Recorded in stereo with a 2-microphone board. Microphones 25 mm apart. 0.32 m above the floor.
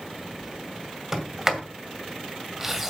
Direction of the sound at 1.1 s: 10° right (ahead or behind).